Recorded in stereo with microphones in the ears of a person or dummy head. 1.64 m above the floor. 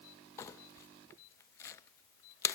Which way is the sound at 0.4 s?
15° left (ahead or behind).